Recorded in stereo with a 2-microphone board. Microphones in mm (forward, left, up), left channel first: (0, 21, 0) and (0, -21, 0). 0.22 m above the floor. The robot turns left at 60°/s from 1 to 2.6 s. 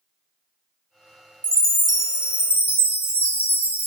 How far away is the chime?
About 0.7 m.